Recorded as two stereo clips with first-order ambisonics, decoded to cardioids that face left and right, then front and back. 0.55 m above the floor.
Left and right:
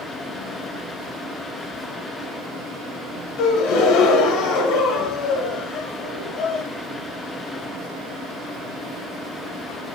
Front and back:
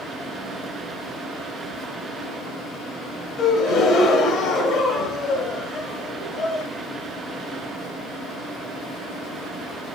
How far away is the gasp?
About 1.0 m.